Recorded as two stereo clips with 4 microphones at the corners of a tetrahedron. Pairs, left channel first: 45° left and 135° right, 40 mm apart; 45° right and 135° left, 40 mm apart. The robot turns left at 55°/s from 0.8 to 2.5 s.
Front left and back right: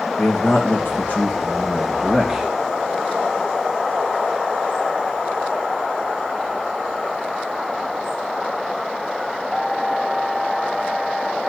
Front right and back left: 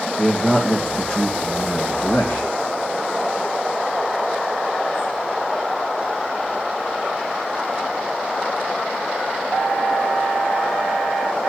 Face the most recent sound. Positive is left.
turn(degrees=-60)